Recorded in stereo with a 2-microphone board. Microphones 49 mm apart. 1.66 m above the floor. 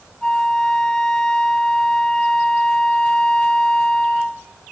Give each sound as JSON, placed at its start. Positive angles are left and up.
{"t": 0.2, "sound": "a flute", "side_deg": 15, "distance_m": 0.6}